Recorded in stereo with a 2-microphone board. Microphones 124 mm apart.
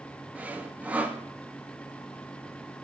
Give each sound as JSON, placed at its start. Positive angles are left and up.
{"t": 0.3, "sound": "sawing", "side_deg": -10, "distance_m": 0.9}